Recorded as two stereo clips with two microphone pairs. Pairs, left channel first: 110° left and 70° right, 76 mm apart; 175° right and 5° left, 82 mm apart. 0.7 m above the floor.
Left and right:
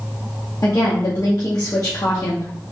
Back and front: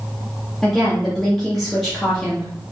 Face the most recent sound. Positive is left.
turn(degrees=100)